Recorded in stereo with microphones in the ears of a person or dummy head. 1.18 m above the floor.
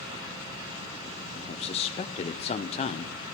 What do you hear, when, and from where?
1.4 s a man speaking: 30° left (ahead or behind), 0.5 m